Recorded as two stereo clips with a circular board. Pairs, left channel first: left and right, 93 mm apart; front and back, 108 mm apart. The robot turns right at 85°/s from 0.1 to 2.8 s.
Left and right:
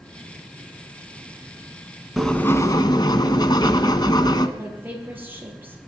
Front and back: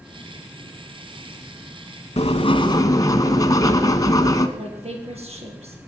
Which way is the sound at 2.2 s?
Straight ahead.